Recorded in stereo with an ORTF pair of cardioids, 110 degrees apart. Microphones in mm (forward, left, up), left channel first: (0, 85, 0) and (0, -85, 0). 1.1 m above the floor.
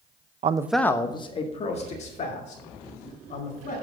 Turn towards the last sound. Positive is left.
turn(degrees=45)